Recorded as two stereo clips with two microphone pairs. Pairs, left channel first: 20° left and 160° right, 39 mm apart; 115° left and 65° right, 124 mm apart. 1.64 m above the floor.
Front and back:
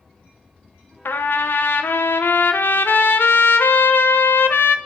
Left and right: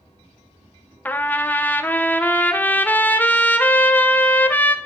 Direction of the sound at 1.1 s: 35° left.